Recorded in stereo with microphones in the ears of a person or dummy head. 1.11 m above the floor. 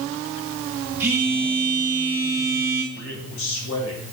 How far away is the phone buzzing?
About 1.7 m.